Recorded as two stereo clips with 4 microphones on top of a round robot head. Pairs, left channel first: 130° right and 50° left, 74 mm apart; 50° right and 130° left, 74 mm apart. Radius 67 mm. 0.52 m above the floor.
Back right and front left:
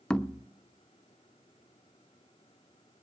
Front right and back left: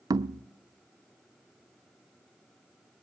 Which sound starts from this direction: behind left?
Knocking, at 0.1 s.